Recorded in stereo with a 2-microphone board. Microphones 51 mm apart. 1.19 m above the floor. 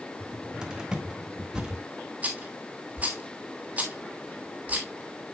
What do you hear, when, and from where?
0.2 s a cupboard door: 15° right (ahead or behind), 1.6 m
2.2 s a rattle: 30° right (ahead or behind), 2.5 m